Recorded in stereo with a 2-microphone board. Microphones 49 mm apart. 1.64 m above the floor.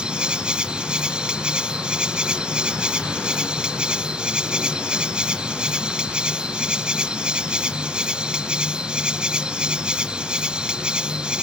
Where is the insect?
20° right (ahead or behind).